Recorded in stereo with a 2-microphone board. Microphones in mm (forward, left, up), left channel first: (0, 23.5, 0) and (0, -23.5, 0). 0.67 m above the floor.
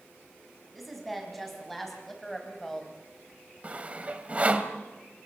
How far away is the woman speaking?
About 5 m.